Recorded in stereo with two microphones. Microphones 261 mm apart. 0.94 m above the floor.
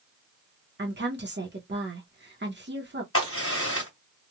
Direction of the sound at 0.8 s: 40° right (ahead or behind).